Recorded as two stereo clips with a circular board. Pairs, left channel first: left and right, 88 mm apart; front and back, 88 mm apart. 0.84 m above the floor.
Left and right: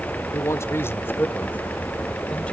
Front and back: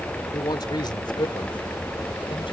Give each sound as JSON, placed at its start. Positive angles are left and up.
{"t": 0.3, "sound": "a man speaking", "azimuth_deg": 35}